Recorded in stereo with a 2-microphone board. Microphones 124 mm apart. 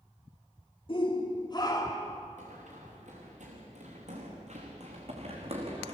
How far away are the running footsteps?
About 6 m.